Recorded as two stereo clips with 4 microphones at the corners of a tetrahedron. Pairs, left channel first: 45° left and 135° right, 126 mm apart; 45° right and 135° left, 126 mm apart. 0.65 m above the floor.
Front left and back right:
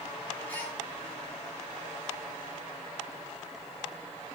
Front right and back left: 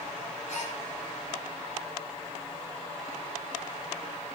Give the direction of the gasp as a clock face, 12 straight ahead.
1 o'clock.